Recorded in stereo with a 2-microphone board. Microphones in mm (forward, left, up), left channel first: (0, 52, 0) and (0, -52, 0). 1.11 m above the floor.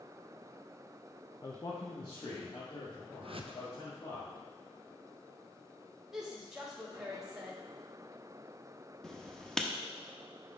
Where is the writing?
5° left (ahead or behind), 0.7 m.